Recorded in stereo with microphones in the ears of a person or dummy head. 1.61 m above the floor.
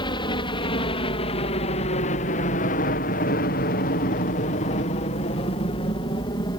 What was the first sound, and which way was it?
A helicopter, 30° left (ahead or behind).